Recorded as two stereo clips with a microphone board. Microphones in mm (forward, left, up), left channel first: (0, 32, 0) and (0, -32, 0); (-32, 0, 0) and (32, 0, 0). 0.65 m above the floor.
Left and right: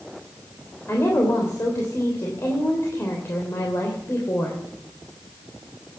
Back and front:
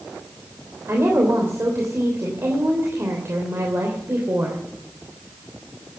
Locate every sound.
0.9 s a woman speaking: 45° left, 3 m